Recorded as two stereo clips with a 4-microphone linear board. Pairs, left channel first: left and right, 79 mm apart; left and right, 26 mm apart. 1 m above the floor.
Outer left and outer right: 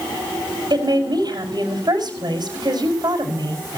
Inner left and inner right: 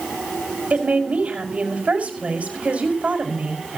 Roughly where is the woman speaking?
Right.